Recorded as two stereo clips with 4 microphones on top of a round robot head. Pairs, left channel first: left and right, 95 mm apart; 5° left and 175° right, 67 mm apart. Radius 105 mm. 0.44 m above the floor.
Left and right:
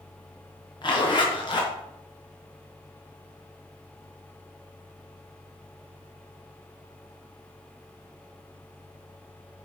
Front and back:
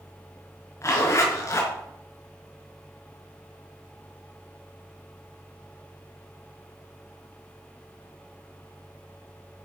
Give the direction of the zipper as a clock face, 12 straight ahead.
10 o'clock.